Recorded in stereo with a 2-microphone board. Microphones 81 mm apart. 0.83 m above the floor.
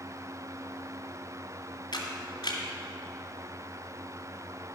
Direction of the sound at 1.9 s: 70° left (ahead or behind).